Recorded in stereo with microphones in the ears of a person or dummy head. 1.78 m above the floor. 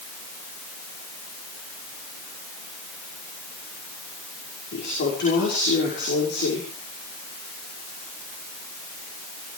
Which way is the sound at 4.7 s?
55° left (ahead or behind).